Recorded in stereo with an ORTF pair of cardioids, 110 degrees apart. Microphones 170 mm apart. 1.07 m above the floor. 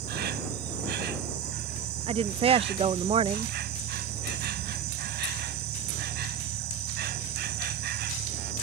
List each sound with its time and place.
0.0 s an insect: 70° right
2.1 s a woman speaking: 35° right